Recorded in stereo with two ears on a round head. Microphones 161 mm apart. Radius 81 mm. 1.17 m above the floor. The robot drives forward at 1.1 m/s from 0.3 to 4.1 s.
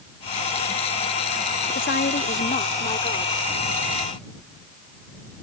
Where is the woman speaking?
60° left (ahead or behind); by 3.4 s 30° left (ahead or behind).